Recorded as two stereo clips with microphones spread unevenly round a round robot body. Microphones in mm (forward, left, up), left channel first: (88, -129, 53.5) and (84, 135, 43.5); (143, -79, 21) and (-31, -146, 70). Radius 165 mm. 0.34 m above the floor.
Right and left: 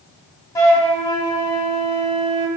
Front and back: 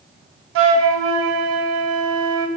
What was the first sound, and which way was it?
A flute, 170° right.